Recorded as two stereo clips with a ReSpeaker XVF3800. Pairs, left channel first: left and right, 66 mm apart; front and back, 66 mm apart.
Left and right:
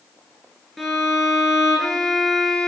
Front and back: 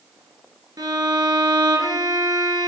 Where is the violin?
Straight behind, 0.7 m.